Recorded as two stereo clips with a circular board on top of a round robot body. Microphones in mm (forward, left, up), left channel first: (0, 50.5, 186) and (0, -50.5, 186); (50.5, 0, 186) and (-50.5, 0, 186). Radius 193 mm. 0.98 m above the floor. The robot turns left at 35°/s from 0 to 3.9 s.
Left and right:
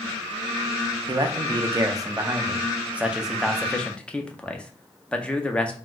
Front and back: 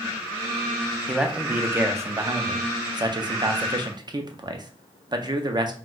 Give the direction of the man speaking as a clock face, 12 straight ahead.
3 o'clock.